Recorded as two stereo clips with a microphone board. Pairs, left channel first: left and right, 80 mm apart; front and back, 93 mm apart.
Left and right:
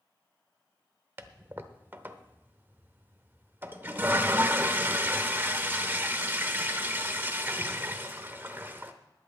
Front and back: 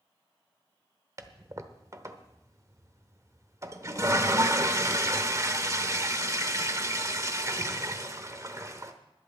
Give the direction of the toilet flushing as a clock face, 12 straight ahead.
5 o'clock.